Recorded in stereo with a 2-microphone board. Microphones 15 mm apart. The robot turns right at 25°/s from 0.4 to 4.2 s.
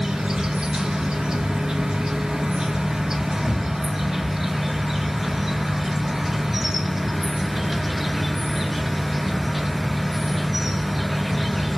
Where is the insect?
110° right, 1.2 m; by 11.8 s 15° right, 1.2 m.